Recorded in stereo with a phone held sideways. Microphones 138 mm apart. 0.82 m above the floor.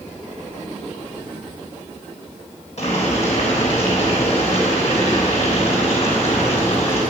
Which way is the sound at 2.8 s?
55° left (ahead or behind).